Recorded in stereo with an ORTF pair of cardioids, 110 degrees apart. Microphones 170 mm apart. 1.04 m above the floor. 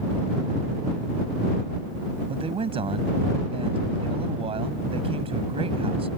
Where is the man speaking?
35° right.